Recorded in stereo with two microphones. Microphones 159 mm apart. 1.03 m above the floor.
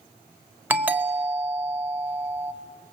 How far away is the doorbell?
About 1.6 m.